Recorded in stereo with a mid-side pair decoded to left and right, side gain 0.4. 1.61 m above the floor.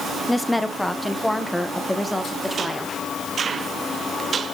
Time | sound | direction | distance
0.3 | a woman speaking | 5° left | 0.9 m